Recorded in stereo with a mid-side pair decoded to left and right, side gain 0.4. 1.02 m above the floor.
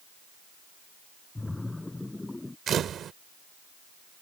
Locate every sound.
1.4 s a splash: 15° left
2.7 s a camera shutter: 65° right